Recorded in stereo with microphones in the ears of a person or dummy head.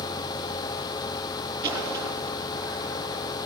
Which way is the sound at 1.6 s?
15° right (ahead or behind).